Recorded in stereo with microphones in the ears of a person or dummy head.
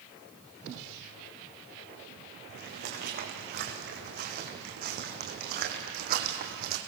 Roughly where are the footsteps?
Right.